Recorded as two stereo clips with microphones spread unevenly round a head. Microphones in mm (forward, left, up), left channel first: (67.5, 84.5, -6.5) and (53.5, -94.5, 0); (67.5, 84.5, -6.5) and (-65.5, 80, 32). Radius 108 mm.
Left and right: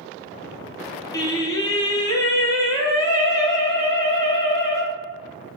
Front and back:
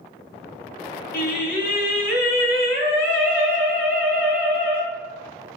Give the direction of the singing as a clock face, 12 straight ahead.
11 o'clock.